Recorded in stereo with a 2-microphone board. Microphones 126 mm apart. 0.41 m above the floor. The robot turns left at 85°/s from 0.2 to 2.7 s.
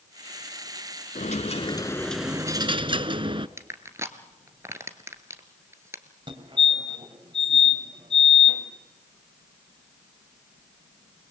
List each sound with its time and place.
1.1 s a dropped coin: 85° left, 0.9 m; by 3.5 s 45° right, 0.9 m
3.6 s crushing: 20° right (ahead or behind), 1.7 m
6.3 s a fire alarm: 40° right (ahead or behind), 3.5 m